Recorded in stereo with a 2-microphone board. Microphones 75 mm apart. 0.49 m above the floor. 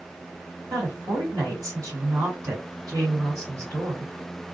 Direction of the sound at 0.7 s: 55° right (ahead or behind).